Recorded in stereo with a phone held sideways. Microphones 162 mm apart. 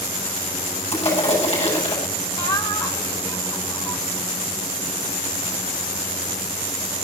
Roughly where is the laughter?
Left.